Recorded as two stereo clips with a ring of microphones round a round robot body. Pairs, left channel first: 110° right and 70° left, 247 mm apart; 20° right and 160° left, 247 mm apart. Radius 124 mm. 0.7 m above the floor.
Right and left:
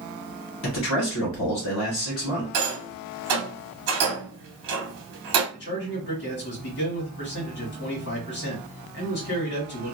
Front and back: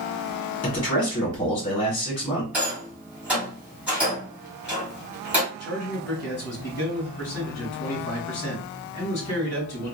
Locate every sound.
0.6 s a man speaking: 90° right, 1.5 m
2.5 s a rattle: 70° left, 1.0 m
5.5 s a man speaking: 80° right, 1.6 m